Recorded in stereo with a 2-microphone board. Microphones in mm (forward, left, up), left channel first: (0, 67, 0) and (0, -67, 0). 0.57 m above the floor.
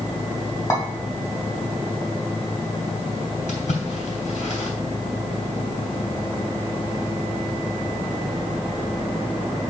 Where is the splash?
75° left (ahead or behind), 2.5 m.